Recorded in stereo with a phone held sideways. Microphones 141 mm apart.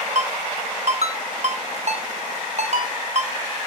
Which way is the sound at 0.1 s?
55° right (ahead or behind).